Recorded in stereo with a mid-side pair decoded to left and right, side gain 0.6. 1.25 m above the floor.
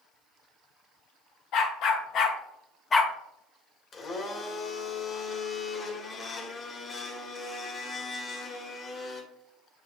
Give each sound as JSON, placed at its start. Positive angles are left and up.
{"t": 1.5, "sound": "a dog barking", "azimuth_deg": 70, "distance_m": 1.9}
{"t": 3.9, "sound": "a blender", "azimuth_deg": 35, "distance_m": 1.7}